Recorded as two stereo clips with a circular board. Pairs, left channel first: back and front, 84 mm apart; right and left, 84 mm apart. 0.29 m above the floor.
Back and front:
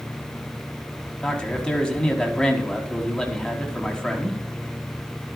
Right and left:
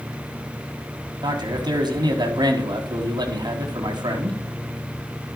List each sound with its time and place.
1.2 s a man speaking: 100° left, 2.5 m